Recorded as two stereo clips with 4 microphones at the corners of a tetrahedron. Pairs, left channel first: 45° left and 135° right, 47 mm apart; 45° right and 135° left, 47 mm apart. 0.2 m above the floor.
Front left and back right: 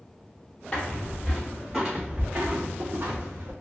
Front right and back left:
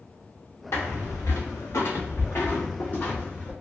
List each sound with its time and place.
0.7 s footsteps: 20° right, 1.0 m; by 3.5 s 105° right, 1.2 m